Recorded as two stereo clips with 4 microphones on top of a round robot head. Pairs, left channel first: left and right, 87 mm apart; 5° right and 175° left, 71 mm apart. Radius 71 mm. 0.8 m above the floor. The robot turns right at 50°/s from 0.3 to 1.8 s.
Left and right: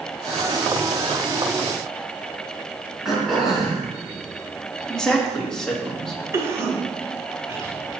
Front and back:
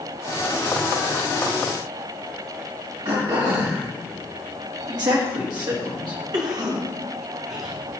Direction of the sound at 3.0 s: 175° right.